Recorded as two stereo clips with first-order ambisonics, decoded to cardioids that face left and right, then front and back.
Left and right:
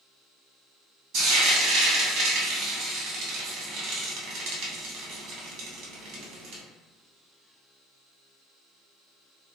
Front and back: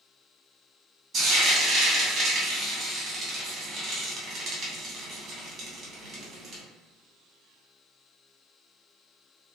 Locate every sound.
1.1 s frying: 120° right, 0.9 m